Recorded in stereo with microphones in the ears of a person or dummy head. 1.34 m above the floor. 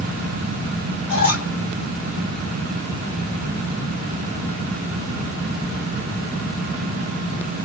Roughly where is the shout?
No shout in this recording.